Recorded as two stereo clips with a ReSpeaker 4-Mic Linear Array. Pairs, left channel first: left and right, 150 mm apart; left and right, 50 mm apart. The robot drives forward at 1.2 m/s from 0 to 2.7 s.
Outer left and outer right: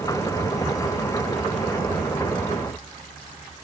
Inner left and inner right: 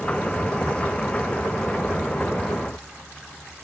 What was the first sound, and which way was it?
Only background noise.